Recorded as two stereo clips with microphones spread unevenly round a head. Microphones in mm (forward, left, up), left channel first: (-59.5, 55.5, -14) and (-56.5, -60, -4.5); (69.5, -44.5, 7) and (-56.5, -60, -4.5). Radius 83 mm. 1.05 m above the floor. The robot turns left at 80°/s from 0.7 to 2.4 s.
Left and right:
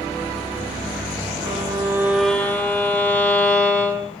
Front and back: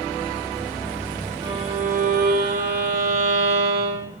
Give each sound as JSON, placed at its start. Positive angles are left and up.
{"t": 1.4, "sound": "a violin", "azimuth_deg": -110, "distance_m": 2.5}